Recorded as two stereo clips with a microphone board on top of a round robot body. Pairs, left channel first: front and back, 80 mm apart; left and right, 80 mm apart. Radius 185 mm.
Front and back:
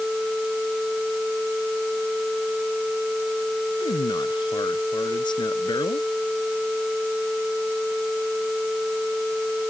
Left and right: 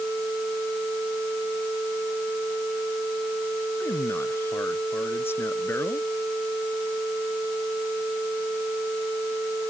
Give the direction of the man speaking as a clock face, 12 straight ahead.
11 o'clock.